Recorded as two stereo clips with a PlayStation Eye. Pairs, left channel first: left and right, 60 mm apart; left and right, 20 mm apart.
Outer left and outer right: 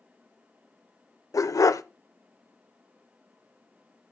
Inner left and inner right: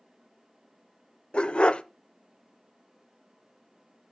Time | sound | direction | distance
1.3 | a dog barking | 75° left (ahead or behind) | 0.6 m